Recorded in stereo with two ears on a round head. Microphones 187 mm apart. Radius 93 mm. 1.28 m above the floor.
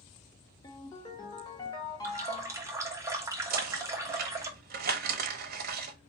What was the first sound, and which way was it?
A ringtone, 20° left (ahead or behind).